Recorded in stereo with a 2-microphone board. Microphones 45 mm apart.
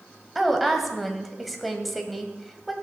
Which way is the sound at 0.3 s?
Centre (ahead or behind).